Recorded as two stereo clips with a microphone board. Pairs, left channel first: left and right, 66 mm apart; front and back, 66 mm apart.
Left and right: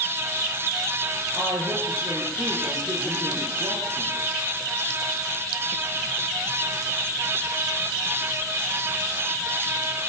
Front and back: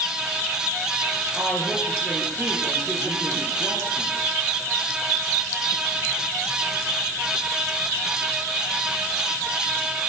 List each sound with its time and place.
1.4 s a woman speaking: 90° right, 5 m